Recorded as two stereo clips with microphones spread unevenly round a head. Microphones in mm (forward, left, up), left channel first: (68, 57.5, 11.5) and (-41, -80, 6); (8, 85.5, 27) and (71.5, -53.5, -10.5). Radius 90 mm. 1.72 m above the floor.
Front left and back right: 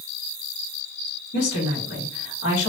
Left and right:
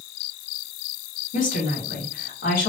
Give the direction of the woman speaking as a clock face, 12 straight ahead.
9 o'clock.